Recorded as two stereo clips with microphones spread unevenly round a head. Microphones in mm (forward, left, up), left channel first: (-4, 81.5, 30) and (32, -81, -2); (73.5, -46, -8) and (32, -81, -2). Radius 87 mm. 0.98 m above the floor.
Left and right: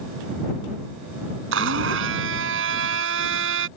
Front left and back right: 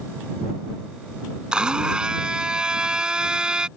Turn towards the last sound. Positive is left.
turn(degrees=-65)